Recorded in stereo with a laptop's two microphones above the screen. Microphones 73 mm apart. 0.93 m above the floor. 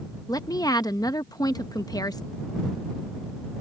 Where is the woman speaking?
60° left (ahead or behind).